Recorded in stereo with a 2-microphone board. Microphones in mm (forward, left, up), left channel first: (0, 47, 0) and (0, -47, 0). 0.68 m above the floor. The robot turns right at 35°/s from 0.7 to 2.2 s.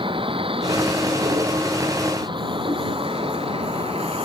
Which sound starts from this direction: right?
A vehicle, at 0.0 s.